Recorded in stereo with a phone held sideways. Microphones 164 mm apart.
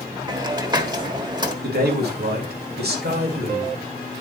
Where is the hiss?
25° right (ahead or behind), 1.2 m.